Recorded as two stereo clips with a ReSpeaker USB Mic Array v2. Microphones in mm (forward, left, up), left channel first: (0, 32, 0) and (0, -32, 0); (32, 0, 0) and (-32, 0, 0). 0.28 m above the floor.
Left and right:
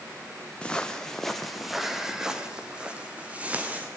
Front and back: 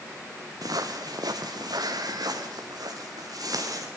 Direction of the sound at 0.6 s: 160° left.